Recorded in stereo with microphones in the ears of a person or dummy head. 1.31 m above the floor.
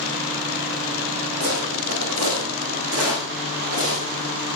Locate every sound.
1.4 s footsteps: 75° right (ahead or behind), 4.5 m; by 4.3 s 60° right (ahead or behind), 5.5 m